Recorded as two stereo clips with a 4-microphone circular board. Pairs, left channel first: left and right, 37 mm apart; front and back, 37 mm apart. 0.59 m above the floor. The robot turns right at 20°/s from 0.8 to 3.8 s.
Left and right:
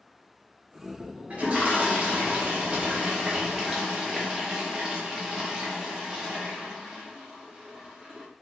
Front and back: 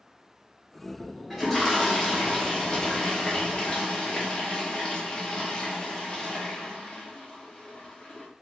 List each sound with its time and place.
1.3 s a toilet flushing: 80° right, 0.8 m; by 8.3 s 30° right, 0.8 m